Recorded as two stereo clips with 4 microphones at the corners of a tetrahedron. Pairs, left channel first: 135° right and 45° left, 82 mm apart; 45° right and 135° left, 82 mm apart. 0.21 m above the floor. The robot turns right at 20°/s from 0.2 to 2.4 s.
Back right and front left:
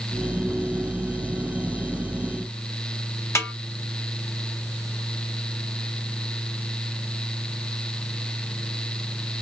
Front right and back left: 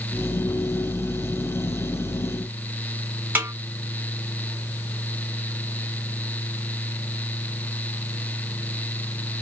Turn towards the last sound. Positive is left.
turn(degrees=-170)